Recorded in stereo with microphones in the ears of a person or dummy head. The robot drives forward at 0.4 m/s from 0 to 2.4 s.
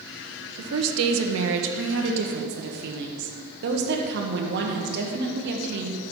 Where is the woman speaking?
75° right (ahead or behind), 1.1 m; by 6.0 s 60° right (ahead or behind), 1.3 m.